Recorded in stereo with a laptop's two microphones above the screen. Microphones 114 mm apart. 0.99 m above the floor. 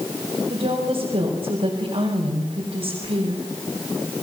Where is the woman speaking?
70° right (ahead or behind), 5 m.